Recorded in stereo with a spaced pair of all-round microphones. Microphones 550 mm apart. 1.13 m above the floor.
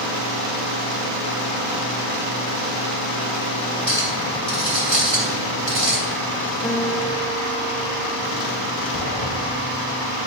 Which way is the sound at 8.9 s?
80° left.